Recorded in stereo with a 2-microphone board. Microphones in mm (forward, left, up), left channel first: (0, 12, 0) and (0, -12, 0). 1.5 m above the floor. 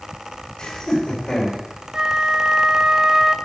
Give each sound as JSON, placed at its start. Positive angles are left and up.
{"t": 0.6, "sound": "laughter", "side_deg": 30, "distance_m": 7.0}
{"t": 1.9, "sound": "a flute", "side_deg": -35, "distance_m": 0.7}